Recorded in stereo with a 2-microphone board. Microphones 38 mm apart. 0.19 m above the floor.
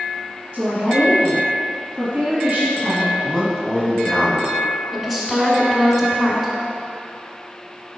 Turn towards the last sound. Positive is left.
turn(degrees=10)  # may be behind; listen again after turning